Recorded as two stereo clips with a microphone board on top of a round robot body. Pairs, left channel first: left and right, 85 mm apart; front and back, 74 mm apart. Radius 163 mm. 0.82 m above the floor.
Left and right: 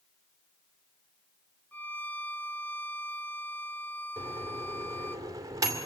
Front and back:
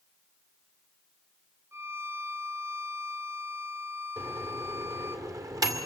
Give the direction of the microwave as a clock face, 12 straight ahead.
5 o'clock.